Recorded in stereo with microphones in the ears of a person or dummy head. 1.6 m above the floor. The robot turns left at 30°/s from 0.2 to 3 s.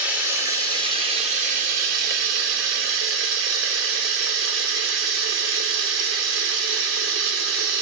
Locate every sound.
0.0 s running water: 10° right, 0.7 m; by 7.8 s 95° right, 0.7 m